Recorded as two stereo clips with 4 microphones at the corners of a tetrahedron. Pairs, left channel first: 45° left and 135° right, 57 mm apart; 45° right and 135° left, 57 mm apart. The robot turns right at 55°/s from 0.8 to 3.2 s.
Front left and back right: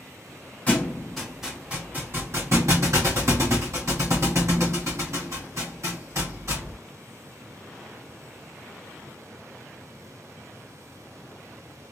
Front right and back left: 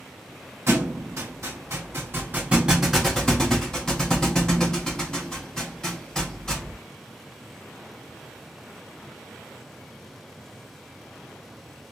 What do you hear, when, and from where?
0.7 s a thud: 105° left, 1.9 m; by 6.8 s 125° right, 1.9 m